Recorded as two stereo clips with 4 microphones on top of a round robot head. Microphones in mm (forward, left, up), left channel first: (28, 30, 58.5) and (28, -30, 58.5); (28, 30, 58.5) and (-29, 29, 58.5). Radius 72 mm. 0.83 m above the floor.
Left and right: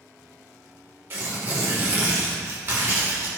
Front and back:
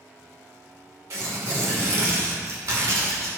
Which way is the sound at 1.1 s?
140° right.